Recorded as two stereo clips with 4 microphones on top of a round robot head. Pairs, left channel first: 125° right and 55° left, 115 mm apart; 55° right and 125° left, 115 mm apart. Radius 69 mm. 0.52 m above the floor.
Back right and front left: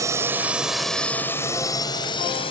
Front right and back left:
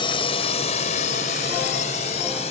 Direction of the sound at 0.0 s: 10° right.